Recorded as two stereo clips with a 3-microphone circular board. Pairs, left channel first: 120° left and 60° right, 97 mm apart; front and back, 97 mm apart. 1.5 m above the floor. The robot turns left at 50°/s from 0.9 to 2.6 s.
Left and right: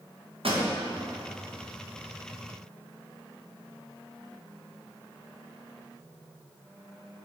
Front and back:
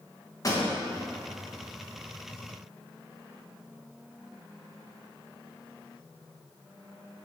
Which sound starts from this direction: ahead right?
A pop, at 0.4 s.